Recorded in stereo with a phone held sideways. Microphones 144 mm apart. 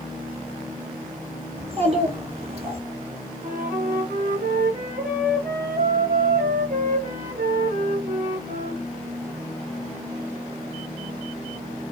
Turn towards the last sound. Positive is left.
turn(degrees=-70)  # may be behind; listen again after turning